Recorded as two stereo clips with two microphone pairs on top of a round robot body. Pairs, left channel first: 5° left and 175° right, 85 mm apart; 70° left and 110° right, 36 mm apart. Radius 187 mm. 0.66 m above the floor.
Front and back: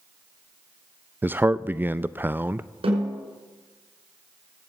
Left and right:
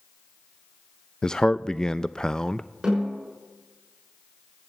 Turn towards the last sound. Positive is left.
turn(degrees=180)